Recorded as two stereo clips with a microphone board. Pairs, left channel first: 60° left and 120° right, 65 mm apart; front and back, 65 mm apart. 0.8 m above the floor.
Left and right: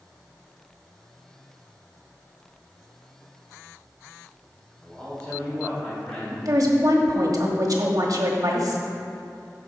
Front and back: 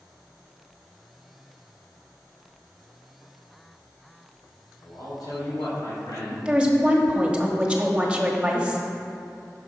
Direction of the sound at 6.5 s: 105° right.